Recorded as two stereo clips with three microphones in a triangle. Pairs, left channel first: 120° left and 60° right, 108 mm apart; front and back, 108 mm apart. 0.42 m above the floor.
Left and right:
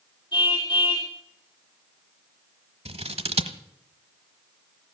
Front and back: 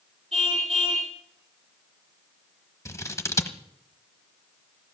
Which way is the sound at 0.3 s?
170° left.